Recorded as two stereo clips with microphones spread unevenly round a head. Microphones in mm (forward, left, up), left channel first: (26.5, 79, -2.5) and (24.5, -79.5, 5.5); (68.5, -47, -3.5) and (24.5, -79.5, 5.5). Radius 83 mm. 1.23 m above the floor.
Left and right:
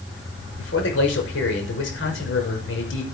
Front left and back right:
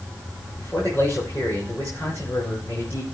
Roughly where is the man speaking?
Left.